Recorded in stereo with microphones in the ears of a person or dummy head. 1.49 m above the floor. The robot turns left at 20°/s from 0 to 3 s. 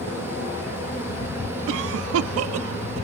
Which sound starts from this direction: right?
A cough, at 1.7 s.